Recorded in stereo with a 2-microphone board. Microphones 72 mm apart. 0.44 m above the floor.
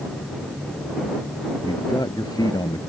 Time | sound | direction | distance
1.6 | a man speaking | 75° left (ahead or behind) | ?